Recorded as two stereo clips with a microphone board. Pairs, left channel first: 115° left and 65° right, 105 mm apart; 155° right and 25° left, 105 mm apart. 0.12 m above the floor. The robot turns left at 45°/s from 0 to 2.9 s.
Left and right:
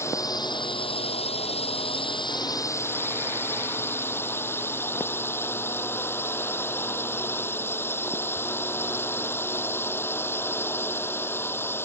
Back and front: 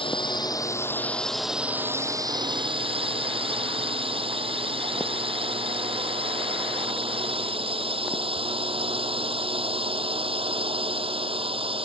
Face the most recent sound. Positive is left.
turn(degrees=45)